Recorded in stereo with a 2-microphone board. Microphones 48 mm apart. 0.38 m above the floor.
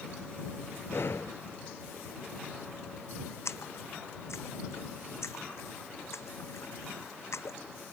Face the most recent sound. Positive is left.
turn(degrees=75)  # may be behind; listen again after turning